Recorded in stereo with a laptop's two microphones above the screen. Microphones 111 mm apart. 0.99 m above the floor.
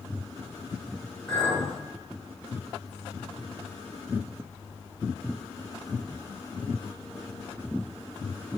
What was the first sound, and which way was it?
A clink, 15° left (ahead or behind).